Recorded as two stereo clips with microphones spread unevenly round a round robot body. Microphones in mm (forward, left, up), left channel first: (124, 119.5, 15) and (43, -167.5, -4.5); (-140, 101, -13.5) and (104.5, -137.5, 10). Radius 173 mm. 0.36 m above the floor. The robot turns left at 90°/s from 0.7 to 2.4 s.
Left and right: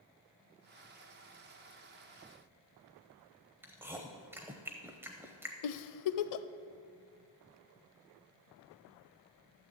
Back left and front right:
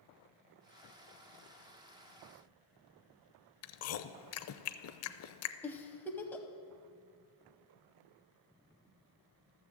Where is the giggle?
50° left, 0.6 m.